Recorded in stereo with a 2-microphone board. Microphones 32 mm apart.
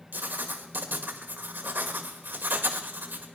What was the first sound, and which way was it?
Writing, 75° right (ahead or behind).